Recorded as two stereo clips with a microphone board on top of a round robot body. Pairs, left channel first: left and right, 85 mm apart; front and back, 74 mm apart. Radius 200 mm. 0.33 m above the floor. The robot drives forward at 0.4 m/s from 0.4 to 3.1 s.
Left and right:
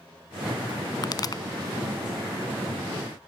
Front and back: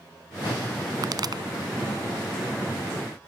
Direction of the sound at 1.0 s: 135° left.